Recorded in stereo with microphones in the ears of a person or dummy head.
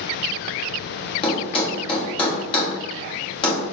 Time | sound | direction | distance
1.2 | a thud | 25° left (ahead or behind) | 1.5 m